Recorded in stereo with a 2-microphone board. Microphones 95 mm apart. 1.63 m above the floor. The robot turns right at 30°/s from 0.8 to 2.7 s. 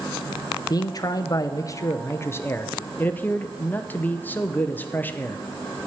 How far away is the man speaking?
About 0.6 m.